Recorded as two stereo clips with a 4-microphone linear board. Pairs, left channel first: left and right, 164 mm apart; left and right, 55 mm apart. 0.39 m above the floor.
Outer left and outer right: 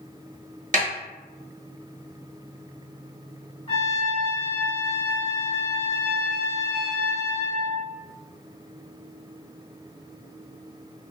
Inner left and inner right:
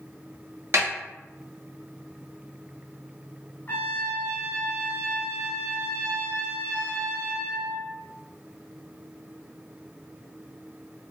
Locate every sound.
0.7 s a snare drum: 50° right (ahead or behind), 1.1 m
3.7 s a trumpet: 35° left (ahead or behind), 0.8 m